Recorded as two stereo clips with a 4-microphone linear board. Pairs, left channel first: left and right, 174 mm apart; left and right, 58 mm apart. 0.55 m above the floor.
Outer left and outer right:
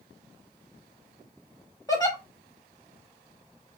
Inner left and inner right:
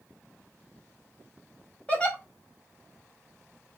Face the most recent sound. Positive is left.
turn(degrees=20)  # may be behind; listen again after turning